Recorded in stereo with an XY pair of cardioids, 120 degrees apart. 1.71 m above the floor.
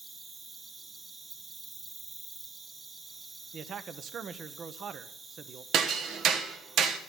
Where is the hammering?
70° right, 1.3 m.